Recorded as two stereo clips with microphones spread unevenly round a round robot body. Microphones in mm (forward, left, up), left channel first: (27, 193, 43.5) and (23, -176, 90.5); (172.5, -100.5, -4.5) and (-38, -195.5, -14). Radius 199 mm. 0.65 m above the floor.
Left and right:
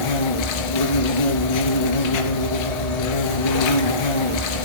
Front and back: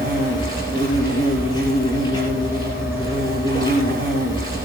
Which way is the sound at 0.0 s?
105° left.